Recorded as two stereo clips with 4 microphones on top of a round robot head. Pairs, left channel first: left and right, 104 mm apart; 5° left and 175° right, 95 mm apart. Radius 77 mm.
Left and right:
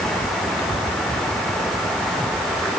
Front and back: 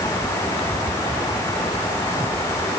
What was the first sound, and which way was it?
Only background noise.